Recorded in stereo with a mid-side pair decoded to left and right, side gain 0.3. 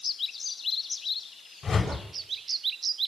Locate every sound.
1.6 s a whoosh: 55° left, 7 m